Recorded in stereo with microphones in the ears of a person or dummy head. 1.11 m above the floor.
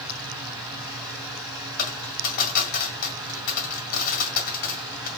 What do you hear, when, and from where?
0.0 s a fan: 15° right (ahead or behind), 3 m
1.8 s a dropped coin: 55° left (ahead or behind), 2 m